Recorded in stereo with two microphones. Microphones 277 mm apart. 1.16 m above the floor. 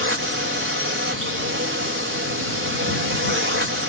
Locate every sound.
0.0 s a drone: 50° right (ahead or behind)